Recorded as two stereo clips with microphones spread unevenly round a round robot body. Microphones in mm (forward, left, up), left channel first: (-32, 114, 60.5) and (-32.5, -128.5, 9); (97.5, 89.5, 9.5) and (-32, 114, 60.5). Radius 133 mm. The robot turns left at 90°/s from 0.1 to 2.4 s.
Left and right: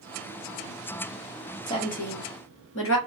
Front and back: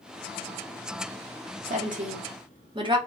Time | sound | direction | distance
1.7 | a woman speaking | 170° left | 1.1 m